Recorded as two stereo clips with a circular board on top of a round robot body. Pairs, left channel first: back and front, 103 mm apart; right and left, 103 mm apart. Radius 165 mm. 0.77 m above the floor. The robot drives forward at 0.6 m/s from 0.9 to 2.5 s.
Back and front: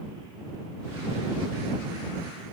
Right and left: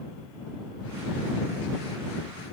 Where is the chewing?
I don't hear chewing.